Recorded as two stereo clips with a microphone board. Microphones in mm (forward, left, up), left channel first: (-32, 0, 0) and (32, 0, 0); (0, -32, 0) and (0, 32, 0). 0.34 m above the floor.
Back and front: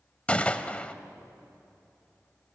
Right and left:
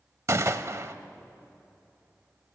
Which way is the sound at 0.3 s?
115° left.